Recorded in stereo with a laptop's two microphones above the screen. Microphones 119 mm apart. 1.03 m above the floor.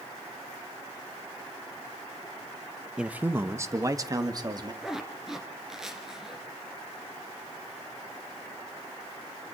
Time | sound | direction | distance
3.0 | a man speaking | 5° right (ahead or behind) | 0.9 m
4.8 | a zipper | 5° right (ahead or behind) | 2.5 m